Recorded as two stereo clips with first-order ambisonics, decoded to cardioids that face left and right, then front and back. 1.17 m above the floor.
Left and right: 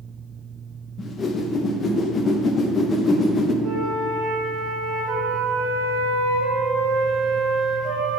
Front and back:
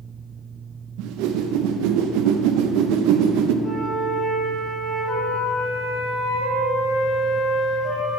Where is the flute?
65° right, 1.5 m.